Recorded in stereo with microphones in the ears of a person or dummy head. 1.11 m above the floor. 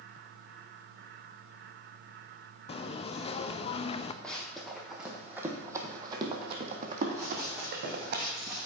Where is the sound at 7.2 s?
20° right (ahead or behind), 3 m; by 8.7 s 5° right (ahead or behind), 3.5 m.